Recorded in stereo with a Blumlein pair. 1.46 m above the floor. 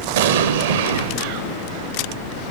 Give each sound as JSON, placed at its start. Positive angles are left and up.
{"t": 0.2, "sound": "an explosion", "azimuth_deg": -60, "distance_m": 0.7}